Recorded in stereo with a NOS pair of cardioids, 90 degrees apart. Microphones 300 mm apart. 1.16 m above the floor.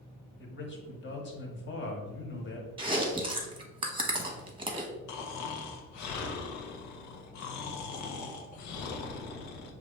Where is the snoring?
70° left, 0.8 m.